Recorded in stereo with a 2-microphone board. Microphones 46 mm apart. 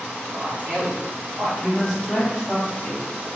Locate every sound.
0.3 s a man speaking: 30° right (ahead or behind), 1.2 m; by 1.5 s 40° right (ahead or behind), 1.9 m
1.6 s a man speaking: centre (ahead or behind), 1.6 m